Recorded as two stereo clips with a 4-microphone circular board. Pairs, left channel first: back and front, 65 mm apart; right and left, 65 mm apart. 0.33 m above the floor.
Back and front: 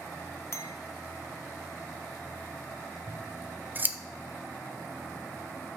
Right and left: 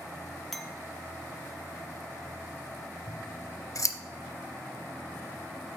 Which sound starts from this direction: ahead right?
Scissors, at 3.1 s.